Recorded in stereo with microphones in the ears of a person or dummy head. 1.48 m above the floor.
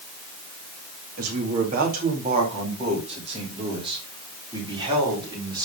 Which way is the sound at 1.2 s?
55° right (ahead or behind).